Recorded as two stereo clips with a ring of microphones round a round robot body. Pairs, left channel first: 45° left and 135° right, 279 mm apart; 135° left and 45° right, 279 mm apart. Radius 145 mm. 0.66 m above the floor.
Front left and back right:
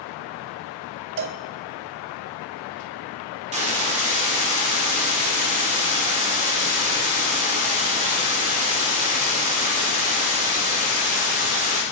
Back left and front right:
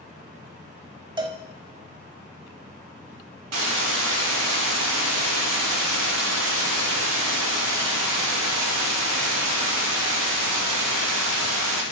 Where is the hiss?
70° right, 2 m.